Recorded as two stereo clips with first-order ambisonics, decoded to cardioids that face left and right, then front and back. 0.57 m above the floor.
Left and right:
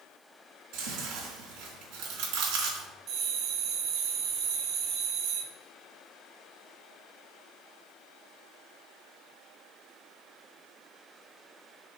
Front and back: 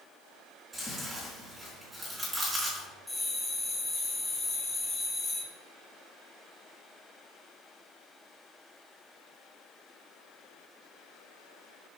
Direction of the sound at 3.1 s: 85° right.